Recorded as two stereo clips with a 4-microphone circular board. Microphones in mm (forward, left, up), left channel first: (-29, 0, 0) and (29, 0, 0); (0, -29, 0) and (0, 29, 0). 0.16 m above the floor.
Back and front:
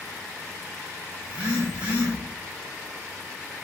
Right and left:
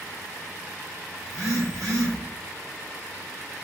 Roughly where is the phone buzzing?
Left.